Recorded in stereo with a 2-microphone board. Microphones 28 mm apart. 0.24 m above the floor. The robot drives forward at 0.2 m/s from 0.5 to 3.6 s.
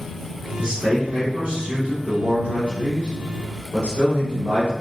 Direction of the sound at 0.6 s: 45° right (ahead or behind).